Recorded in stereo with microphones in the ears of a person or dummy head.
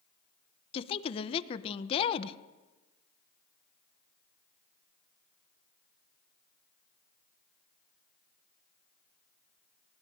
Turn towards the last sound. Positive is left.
turn(degrees=30)  # may be behind; listen again after turning